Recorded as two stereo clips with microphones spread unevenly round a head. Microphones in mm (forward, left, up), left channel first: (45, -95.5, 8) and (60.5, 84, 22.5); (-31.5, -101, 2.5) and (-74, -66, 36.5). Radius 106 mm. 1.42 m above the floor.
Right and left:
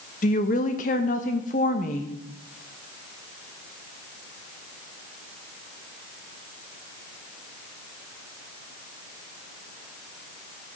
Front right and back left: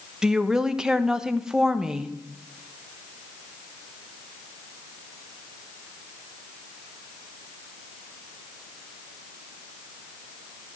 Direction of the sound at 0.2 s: 150° right.